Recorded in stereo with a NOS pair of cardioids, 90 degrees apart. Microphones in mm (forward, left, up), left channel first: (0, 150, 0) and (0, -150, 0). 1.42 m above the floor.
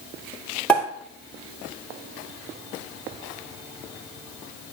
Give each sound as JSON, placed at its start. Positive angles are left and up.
{"t": 0.7, "sound": "a pop", "azimuth_deg": 5, "distance_m": 2.5}